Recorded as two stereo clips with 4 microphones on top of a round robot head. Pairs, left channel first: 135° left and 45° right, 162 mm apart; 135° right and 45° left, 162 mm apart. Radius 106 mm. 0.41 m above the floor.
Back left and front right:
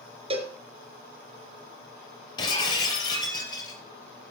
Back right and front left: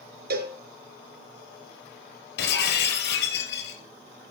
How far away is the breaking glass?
About 3.5 m.